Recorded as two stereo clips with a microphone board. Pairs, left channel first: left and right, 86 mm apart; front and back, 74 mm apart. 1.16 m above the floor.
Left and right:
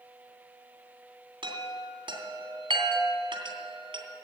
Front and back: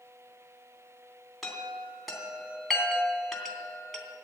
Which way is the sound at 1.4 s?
90° right.